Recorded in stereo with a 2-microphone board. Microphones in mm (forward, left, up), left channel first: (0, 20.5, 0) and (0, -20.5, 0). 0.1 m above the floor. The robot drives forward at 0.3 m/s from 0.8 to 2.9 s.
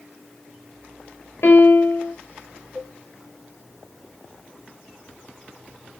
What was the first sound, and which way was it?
A piano, 75° left (ahead or behind).